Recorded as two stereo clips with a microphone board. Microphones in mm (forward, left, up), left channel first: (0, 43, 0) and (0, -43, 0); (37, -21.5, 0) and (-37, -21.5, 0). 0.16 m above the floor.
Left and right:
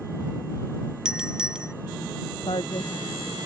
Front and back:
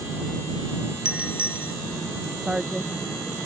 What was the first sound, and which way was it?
A doorbell, 155° right.